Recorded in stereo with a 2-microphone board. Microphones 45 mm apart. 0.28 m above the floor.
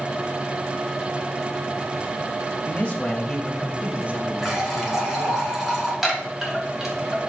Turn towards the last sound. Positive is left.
turn(degrees=-5)  # may be behind; listen again after turning